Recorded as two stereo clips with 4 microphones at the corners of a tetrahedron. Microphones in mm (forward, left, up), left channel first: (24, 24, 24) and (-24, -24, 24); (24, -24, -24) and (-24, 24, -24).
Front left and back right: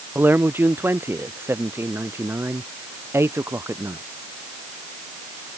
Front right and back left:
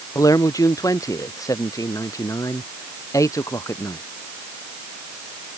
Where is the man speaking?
75° right; by 4.0 s 85° right.